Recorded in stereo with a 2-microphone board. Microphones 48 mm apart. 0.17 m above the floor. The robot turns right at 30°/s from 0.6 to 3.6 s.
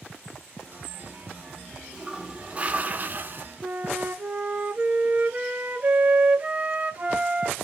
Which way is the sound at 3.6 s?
30° right (ahead or behind).